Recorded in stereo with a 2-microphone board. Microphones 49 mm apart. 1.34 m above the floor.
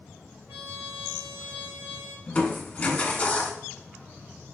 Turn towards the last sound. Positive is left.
turn(degrees=25)  # may be behind; listen again after turning